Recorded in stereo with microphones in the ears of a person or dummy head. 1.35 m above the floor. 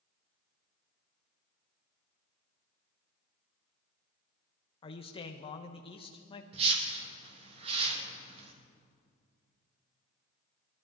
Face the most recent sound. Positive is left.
turn(degrees=-40)  # may be behind; listen again after turning